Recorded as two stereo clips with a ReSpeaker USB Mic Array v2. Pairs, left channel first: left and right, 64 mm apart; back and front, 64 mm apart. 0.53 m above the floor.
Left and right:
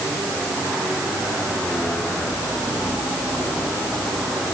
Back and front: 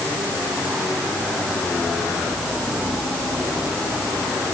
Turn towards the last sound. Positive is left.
No sound to turn to.